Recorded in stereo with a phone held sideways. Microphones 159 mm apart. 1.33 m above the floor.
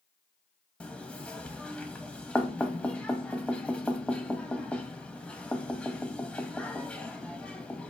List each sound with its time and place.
0.8 s knocking: 5° left (ahead or behind), 0.8 m